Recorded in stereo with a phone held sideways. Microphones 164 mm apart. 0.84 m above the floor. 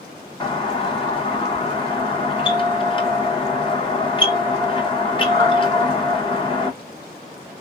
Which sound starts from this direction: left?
A doorbell, at 0.4 s.